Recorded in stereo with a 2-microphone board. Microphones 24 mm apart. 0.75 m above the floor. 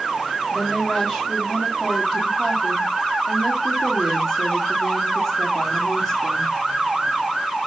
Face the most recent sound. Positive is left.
turn(degrees=-10)  # may be behind; listen again after turning